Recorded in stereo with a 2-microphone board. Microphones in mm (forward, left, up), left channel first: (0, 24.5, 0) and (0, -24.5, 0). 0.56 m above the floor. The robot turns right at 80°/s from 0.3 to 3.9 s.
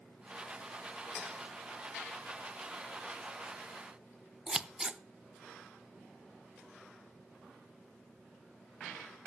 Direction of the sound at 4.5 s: 15° right (ahead or behind).